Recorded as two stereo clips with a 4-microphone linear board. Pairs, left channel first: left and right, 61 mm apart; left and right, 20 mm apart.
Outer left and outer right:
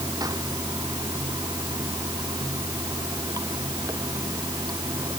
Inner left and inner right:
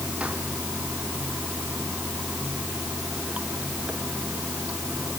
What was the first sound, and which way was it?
Running water, 80° right.